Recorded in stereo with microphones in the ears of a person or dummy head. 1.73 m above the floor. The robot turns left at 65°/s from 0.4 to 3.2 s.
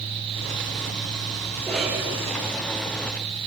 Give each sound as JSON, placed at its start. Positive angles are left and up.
{"t": 1.6, "sound": "a cough", "azimuth_deg": 15, "distance_m": 7.0}